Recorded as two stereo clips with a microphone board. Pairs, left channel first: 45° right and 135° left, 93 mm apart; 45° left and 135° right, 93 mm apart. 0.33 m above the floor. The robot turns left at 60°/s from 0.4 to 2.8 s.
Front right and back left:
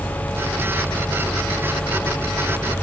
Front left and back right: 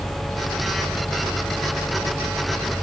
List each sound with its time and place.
Only background noise.